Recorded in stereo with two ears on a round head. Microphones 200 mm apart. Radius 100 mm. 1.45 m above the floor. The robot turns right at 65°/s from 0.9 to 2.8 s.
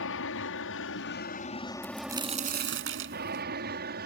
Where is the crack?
175° left; by 3.5 s 120° right.